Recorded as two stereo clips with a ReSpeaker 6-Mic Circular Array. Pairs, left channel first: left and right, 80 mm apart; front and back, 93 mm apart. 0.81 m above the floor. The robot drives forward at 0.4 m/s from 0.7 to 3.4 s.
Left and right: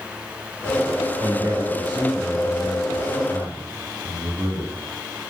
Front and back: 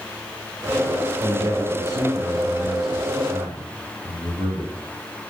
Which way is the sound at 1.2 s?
130° right.